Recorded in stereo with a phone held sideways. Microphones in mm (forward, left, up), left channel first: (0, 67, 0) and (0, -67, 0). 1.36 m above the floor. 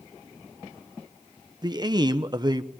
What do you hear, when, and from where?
1.6 s a man speaking: 30° right (ahead or behind), 0.9 m